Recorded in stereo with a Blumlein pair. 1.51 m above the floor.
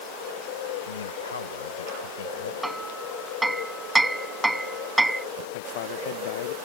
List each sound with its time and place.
0.9 s a man speaking: 65° left; by 2.5 s 60° left
2.6 s hammering: 5° right
5.5 s a man speaking: 55° left